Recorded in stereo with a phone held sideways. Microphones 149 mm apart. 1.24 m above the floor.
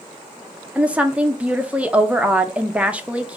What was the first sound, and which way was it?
A woman speaking, 10° right (ahead or behind).